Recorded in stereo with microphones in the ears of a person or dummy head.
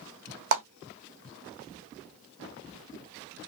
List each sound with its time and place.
0.5 s a clap: 60° right (ahead or behind), 1.6 m